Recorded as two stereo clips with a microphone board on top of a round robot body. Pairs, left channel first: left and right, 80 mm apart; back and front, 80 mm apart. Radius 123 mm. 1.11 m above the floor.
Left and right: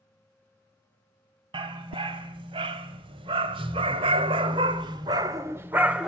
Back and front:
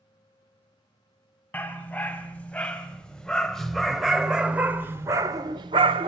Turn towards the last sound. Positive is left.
turn(degrees=-10)